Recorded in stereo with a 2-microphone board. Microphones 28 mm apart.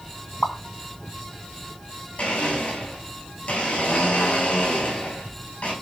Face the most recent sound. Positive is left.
turn(degrees=45)  # may be behind; listen again after turning